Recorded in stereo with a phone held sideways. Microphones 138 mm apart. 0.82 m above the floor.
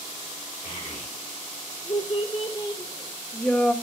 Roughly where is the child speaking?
Left.